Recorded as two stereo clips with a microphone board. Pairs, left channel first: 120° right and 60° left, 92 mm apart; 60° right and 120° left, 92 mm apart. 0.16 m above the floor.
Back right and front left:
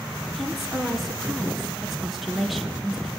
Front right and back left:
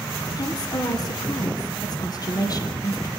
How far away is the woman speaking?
About 2.5 m.